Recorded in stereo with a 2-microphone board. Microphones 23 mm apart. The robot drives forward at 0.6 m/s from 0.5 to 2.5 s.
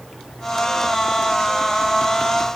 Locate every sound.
Only background noise.